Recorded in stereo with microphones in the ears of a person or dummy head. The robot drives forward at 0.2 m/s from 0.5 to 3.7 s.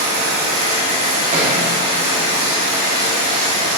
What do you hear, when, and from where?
0.0 s running water: 40° right (ahead or behind), 3 m; by 3.8 s 35° right (ahead or behind), 3.5 m
1.3 s a thud: 35° right (ahead or behind), 1.8 m